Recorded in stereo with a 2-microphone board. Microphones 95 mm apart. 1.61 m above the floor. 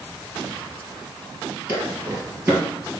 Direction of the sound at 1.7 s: 20° right (ahead or behind).